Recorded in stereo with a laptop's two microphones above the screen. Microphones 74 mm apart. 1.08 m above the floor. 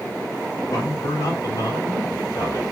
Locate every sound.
0.7 s a man speaking: 50° left (ahead or behind), 1.9 m